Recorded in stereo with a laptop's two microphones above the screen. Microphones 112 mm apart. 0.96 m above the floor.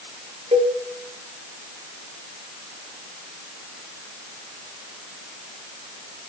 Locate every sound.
0.5 s a cowbell: 70° right (ahead or behind), 1.4 m